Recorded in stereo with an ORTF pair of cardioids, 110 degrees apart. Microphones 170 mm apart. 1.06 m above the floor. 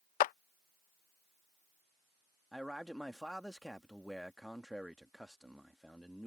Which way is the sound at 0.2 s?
55° left.